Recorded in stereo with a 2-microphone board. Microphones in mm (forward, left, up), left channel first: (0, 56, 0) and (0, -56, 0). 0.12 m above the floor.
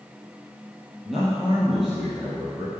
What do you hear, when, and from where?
1.1 s a man speaking: centre (ahead or behind), 3 m